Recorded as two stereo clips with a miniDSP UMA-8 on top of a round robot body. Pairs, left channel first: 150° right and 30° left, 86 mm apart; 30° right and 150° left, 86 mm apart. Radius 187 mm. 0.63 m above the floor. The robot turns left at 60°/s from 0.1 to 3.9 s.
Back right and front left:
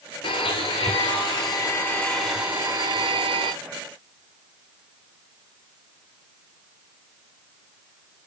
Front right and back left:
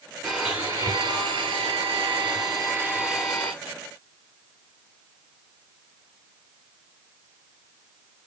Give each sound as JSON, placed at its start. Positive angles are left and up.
{"t": 0.2, "sound": "a blender", "azimuth_deg": -125, "distance_m": 1.3}